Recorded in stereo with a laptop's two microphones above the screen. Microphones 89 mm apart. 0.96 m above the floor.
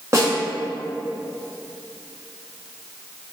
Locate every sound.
0.1 s a snare drum: 35° right (ahead or behind), 0.7 m